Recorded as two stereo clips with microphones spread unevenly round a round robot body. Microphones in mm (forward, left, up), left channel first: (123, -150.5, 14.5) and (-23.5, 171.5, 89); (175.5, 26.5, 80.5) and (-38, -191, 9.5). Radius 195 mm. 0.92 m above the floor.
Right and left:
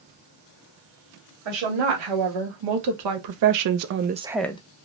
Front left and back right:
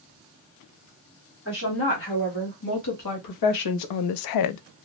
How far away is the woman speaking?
About 1.6 m.